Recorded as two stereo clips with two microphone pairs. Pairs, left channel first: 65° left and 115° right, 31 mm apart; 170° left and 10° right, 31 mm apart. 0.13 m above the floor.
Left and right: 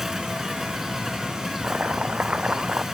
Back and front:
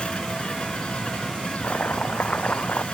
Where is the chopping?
160° right.